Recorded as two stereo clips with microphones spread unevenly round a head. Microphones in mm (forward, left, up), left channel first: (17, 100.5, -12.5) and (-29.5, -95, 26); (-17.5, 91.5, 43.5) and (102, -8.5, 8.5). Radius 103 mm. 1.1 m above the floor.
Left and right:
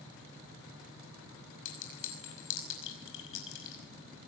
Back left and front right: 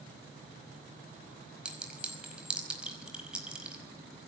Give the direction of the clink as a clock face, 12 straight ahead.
11 o'clock.